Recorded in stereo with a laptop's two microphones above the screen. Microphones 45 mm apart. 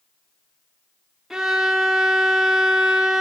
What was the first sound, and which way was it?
A violin, 10° right (ahead or behind).